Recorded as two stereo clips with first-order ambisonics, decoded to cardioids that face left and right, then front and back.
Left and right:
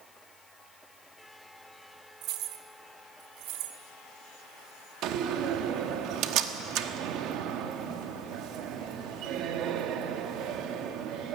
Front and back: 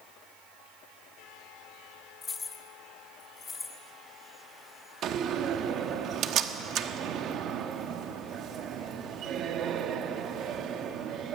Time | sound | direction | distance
2.2 | keys jangling | 60° right | 1.0 m
5.0 | a door slam | 125° right | 1.1 m